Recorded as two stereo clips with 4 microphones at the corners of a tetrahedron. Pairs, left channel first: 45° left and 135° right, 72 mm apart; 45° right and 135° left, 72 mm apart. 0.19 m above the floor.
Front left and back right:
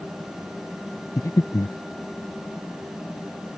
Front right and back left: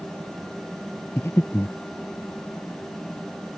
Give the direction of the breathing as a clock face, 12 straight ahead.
12 o'clock.